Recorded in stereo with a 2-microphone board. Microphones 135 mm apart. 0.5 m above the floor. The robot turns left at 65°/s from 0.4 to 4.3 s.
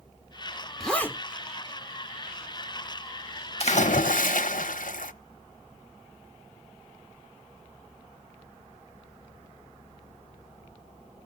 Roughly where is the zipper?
Centre.